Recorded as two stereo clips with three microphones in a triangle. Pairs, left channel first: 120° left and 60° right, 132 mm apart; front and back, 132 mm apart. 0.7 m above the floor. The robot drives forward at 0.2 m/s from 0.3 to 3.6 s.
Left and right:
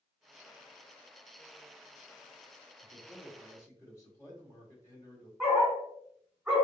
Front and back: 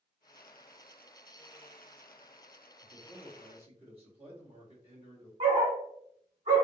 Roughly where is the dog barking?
Behind right.